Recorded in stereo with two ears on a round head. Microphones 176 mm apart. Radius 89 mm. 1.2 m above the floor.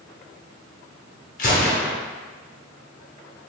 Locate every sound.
1.4 s a gunshot: 45° left (ahead or behind), 1.0 m